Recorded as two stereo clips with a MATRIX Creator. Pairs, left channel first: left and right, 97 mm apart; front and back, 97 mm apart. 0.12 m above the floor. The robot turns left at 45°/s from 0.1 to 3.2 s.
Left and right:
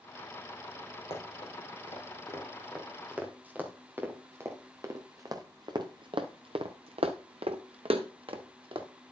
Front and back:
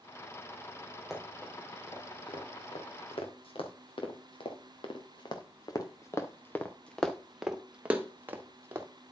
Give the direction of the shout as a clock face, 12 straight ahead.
No shout in this recording.